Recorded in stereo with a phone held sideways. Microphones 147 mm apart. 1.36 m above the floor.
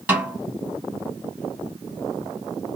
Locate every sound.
0.1 s a snare drum: 10° right (ahead or behind), 3 m